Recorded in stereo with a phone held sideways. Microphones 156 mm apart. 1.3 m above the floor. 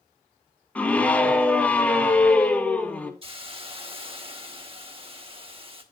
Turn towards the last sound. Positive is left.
turn(degrees=-35)  # may be behind; listen again after turning